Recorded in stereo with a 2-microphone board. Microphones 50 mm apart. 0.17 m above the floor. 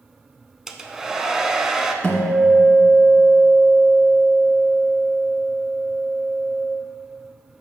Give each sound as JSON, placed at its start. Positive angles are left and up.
{"t": 0.7, "sound": "a hair dryer", "side_deg": -10, "distance_m": 0.6}
{"t": 2.0, "sound": "a guitar", "side_deg": 20, "distance_m": 1.7}